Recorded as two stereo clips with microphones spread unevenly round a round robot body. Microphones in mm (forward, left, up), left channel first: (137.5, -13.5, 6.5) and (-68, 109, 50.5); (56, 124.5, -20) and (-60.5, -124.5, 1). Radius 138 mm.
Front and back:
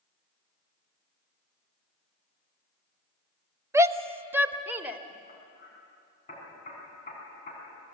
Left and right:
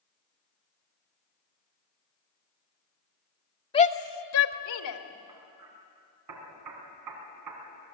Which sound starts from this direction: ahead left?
A shout, at 3.7 s.